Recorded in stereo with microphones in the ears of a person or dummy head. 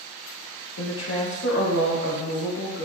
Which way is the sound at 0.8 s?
85° left.